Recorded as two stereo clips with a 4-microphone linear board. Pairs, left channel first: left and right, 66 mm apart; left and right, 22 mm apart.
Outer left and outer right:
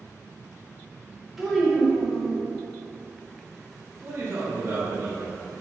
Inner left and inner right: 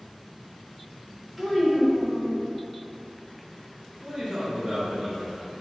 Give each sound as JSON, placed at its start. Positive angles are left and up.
{"t": 1.4, "sound": "a child speaking", "side_deg": -5, "distance_m": 0.7}
{"t": 4.0, "sound": "a man speaking", "side_deg": -35, "distance_m": 0.6}